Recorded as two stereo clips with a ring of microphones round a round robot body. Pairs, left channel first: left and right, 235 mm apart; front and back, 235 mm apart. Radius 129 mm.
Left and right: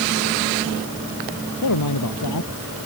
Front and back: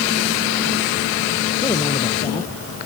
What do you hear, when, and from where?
1.6 s a man speaking: 75° left